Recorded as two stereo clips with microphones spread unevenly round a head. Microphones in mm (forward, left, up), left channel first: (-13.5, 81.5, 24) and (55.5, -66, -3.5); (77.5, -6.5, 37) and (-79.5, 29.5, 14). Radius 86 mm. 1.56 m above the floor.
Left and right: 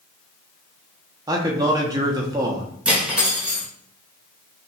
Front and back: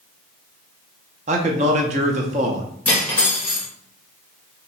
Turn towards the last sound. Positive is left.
turn(degrees=35)